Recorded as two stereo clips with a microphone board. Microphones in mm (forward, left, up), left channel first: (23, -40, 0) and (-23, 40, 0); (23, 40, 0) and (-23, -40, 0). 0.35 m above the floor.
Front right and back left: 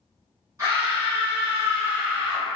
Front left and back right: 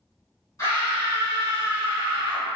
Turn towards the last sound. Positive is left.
turn(degrees=85)